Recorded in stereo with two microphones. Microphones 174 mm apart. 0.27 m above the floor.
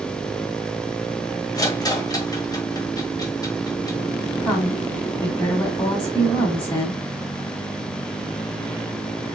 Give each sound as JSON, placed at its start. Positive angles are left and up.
{"t": 1.6, "sound": "a rattle", "side_deg": 20, "distance_m": 1.4}
{"t": 4.4, "sound": "a woman speaking", "side_deg": 25, "distance_m": 2.5}